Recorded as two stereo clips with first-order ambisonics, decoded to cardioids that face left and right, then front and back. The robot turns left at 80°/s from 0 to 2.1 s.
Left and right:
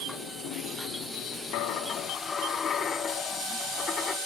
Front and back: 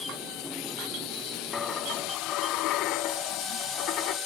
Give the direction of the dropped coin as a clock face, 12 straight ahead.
10 o'clock.